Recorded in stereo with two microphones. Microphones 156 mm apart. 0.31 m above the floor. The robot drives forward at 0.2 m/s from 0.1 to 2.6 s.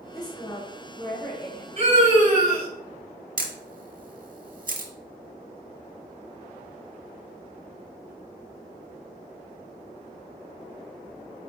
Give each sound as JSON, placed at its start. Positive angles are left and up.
{"t": 0.1, "sound": "a woman speaking", "side_deg": 25, "distance_m": 1.0}
{"t": 1.8, "sound": "a scream", "side_deg": -45, "distance_m": 1.8}
{"t": 3.4, "sound": "a camera shutter", "side_deg": -60, "distance_m": 0.7}